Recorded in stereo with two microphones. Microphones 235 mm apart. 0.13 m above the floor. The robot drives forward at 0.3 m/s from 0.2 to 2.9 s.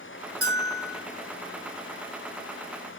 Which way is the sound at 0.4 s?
75° right (ahead or behind).